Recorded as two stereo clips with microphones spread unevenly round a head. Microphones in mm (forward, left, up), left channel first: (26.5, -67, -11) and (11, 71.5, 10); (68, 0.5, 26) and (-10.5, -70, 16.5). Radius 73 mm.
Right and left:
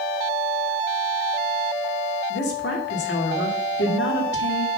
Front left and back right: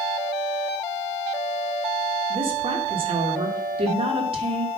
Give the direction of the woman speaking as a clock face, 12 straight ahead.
3 o'clock.